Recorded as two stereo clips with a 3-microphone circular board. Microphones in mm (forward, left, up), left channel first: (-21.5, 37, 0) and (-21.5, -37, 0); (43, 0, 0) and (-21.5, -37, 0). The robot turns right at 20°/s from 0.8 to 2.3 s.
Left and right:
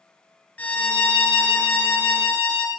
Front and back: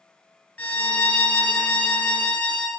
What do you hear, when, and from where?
0.6 s a violin: 55° left, 1.2 m; by 2.7 s 85° left, 1.2 m